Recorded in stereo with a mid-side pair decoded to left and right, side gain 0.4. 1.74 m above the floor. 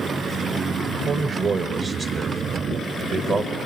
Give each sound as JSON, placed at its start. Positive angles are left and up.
{"t": 0.8, "sound": "a man speaking", "azimuth_deg": -65, "distance_m": 0.9}